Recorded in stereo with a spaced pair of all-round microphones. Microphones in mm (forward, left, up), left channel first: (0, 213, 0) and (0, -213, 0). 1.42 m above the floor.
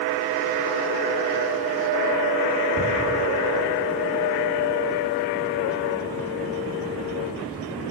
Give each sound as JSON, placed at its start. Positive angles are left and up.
{"t": 2.8, "sound": "ticking", "side_deg": -55, "distance_m": 3.5}